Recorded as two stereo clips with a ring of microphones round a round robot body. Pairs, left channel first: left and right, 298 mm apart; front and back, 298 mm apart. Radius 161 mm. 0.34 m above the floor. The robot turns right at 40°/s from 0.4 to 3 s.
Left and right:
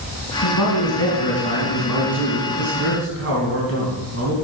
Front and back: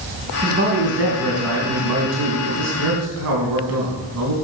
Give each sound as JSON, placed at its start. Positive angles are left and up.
{"t": 0.4, "sound": "a man speaking", "azimuth_deg": 115, "distance_m": 3.0}